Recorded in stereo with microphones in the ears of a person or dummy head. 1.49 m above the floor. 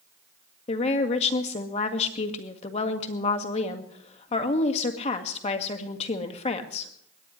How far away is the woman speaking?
About 1.8 m.